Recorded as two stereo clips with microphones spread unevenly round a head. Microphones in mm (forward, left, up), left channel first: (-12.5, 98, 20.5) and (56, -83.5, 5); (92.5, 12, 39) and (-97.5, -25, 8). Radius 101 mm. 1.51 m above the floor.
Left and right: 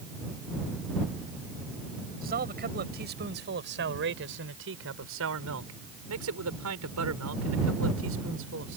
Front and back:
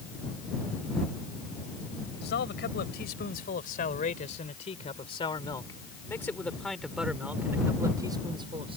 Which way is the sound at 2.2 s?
25° right.